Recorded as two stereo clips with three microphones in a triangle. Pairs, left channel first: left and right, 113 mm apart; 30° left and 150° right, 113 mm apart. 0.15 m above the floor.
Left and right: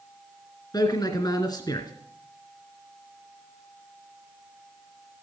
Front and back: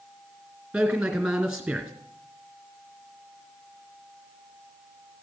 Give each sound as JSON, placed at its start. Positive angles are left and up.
{"t": 0.7, "sound": "a man speaking", "azimuth_deg": 130, "distance_m": 2.0}